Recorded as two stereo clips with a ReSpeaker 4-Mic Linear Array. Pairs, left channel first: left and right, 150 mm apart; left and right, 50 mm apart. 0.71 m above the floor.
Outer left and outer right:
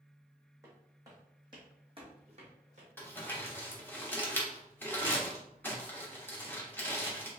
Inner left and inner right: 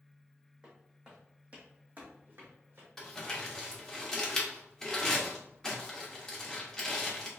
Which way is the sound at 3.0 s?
15° left (ahead or behind).